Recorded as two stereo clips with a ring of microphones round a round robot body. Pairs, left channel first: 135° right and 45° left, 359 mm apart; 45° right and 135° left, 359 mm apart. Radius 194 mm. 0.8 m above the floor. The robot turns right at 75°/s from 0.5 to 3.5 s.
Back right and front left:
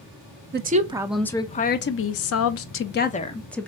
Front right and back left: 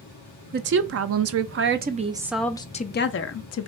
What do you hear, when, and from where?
0.5 s a woman speaking: 85° left, 0.5 m; by 3.7 s 50° right, 0.5 m